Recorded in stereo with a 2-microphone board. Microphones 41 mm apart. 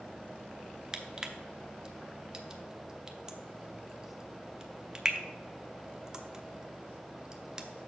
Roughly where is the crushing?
Centre.